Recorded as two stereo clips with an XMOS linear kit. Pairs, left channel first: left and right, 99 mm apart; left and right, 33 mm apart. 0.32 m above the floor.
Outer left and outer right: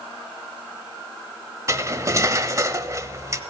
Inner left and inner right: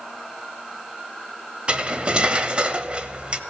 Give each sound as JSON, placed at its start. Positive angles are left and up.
{"t": 1.7, "sound": "cutlery clinking", "side_deg": -30, "distance_m": 0.8}